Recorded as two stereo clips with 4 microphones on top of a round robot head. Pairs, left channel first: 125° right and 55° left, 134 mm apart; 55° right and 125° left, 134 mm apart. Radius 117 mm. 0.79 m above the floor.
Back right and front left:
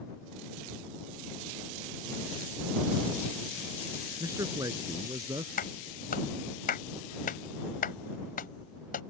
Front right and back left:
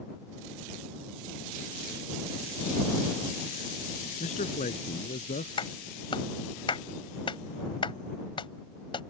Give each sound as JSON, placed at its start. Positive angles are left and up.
{"t": 4.2, "sound": "a man speaking", "azimuth_deg": -15}
{"t": 5.6, "sound": "a clap", "azimuth_deg": -110}